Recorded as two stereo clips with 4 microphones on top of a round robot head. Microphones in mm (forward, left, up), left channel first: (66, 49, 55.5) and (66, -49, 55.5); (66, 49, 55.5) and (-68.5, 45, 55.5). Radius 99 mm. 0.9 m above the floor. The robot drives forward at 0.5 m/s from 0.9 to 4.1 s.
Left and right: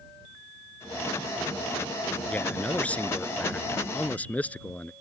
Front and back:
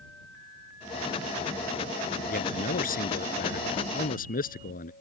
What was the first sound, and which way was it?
A man speaking, 15° left.